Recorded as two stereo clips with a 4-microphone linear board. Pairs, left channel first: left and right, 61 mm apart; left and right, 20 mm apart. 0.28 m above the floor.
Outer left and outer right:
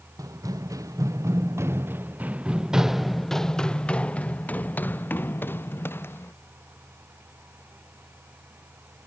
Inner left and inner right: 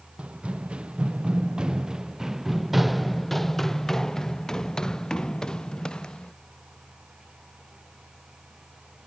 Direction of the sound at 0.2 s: 75° right (ahead or behind).